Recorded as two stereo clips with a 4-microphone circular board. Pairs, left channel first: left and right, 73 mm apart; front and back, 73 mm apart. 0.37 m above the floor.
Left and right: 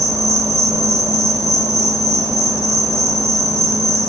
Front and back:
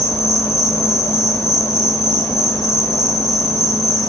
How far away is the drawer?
No drawer in this recording.